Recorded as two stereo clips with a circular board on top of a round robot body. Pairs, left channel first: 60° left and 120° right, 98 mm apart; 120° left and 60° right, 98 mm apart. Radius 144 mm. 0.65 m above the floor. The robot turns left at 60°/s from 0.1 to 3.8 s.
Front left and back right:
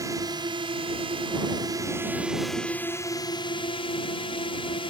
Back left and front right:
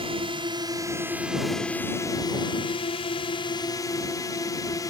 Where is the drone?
70° right; by 4.9 s 70° left.